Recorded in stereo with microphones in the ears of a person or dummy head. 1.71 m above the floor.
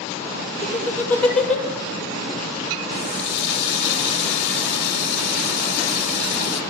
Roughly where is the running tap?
Left.